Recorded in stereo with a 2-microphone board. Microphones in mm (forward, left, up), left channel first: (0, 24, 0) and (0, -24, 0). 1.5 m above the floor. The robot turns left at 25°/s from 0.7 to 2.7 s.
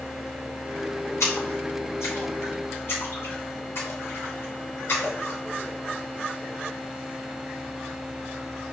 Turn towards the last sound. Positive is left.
turn(degrees=60)  # may be behind; listen again after turning